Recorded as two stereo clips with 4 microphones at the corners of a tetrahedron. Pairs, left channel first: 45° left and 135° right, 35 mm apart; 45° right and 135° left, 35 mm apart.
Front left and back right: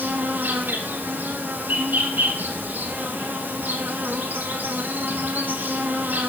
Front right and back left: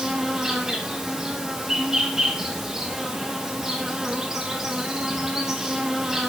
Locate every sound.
0.0 s an insect: 145° right, 2.5 m